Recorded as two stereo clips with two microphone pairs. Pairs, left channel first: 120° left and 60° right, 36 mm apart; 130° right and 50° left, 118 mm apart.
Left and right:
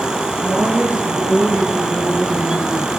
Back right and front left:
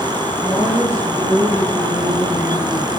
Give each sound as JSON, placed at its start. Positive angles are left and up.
{"t": 0.4, "sound": "a woman speaking", "azimuth_deg": -20, "distance_m": 9.0}